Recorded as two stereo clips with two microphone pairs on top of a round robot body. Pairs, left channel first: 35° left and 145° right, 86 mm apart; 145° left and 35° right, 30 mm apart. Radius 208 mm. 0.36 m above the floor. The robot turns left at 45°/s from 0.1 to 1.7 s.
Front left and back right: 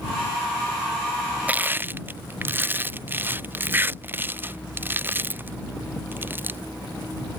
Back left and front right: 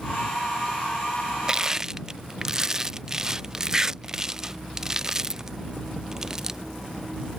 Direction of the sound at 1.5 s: 85° right.